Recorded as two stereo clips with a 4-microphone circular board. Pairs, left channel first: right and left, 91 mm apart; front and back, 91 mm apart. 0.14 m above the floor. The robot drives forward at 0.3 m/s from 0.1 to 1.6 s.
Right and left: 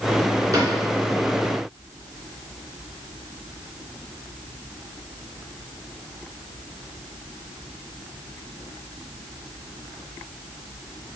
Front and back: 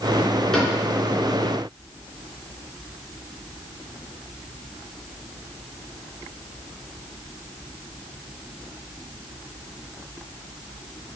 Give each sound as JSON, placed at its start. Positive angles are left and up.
{"t": 0.5, "sound": "a cupboard door", "azimuth_deg": 80, "distance_m": 2.0}